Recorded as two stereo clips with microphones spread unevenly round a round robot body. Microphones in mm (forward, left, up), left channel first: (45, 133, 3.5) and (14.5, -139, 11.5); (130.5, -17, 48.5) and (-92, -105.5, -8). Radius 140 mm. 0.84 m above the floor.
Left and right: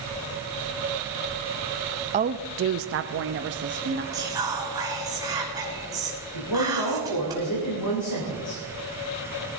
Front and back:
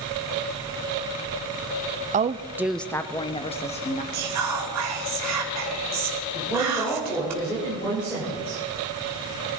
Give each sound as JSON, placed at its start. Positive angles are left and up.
{"t": 2.1, "sound": "a woman speaking", "azimuth_deg": -155, "distance_m": 0.5}
{"t": 4.1, "sound": "whispering", "azimuth_deg": -175, "distance_m": 2.5}
{"t": 6.3, "sound": "a woman speaking", "azimuth_deg": 105, "distance_m": 3.5}